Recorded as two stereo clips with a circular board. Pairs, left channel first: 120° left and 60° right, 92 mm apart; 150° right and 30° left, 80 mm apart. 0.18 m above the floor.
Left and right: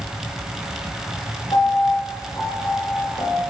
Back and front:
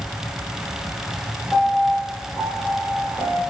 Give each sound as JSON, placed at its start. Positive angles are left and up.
{"t": 1.5, "sound": "a piano", "azimuth_deg": 145, "distance_m": 2.5}